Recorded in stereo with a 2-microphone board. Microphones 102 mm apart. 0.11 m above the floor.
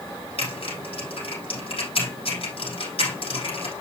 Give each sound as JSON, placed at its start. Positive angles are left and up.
{"t": 0.4, "sound": "typing on a keyboard", "side_deg": 70, "distance_m": 5.0}